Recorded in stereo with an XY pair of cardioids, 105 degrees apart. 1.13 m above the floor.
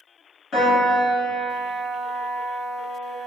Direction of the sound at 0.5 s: 50° left.